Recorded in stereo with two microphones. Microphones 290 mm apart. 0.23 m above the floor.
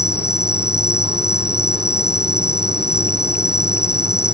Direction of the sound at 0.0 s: 50° left (ahead or behind).